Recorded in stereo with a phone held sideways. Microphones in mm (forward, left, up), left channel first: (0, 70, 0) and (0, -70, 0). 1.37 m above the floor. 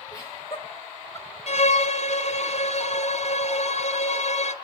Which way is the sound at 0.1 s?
25° left (ahead or behind).